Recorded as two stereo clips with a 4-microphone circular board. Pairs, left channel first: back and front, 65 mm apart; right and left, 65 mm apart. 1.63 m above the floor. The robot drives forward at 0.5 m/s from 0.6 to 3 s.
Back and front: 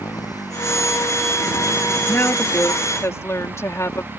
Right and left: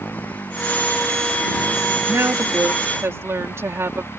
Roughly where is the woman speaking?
Behind left.